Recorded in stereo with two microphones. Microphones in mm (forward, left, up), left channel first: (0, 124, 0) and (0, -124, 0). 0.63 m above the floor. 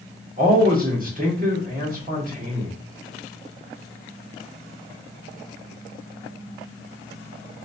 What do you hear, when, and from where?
0.4 s a man speaking: 35° right (ahead or behind), 1.5 m